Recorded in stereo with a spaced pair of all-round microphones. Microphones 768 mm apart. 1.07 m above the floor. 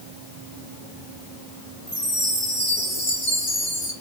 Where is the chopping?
I don't hear chopping.